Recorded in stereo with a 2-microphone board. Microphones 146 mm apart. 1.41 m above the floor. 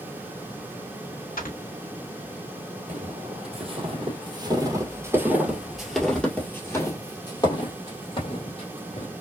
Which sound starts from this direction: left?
Snoring, at 1.4 s.